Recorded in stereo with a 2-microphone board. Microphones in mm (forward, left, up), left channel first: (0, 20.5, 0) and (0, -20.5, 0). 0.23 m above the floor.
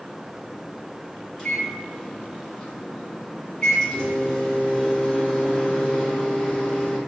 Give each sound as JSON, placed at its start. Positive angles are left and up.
{"t": 1.4, "sound": "a microwave", "side_deg": 15, "distance_m": 1.9}